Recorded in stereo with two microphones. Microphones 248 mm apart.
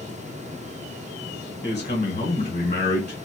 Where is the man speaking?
25° left (ahead or behind), 1.2 m.